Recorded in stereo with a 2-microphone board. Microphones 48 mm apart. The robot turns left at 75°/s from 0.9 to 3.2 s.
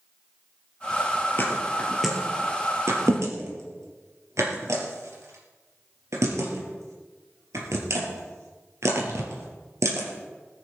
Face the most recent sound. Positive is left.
turn(degrees=-85)